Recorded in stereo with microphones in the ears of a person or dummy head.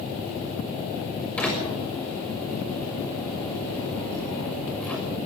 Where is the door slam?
5° left (ahead or behind), 6 m.